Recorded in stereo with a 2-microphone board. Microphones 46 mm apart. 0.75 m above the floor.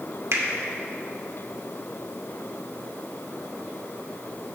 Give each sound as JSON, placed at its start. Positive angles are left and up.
{"t": 0.3, "sound": "a finger snap", "side_deg": -70, "distance_m": 1.1}